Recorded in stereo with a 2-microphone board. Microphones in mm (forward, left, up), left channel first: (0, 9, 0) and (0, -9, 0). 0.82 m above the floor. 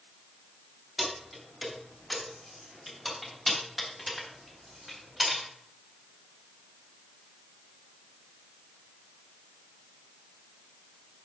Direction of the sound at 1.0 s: 15° right (ahead or behind).